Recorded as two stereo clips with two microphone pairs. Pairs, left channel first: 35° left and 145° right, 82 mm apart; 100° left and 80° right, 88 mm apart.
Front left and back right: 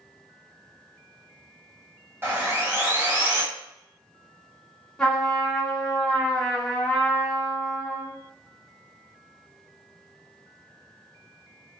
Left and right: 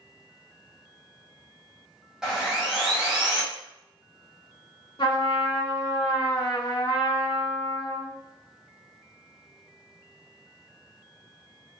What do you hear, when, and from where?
2.2 s sawing: 160° right, 1.3 m
5.0 s a trumpet: 115° left, 1.5 m